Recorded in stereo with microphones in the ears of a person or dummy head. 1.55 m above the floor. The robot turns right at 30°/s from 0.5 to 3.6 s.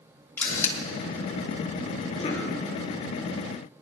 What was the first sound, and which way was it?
A camera shutter, 15° left (ahead or behind).